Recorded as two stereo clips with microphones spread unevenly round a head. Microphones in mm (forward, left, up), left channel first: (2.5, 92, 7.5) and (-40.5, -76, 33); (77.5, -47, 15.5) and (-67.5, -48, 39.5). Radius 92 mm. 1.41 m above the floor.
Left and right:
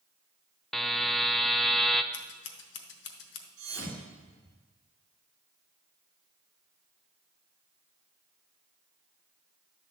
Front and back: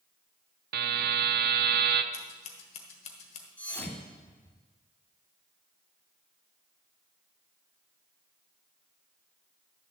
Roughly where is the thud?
Right.